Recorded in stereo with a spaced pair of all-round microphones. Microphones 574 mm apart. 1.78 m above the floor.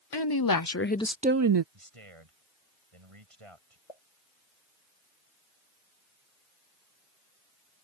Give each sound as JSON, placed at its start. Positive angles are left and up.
{"t": 0.1, "sound": "a woman speaking", "side_deg": 45}
{"t": 1.7, "sound": "a man speaking", "side_deg": -65}
{"t": 3.9, "sound": "a pop", "side_deg": 80}